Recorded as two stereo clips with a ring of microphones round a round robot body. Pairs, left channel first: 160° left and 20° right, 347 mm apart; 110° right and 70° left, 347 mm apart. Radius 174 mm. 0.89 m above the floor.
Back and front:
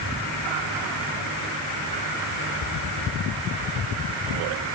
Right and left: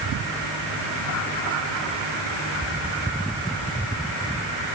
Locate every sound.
Only background noise.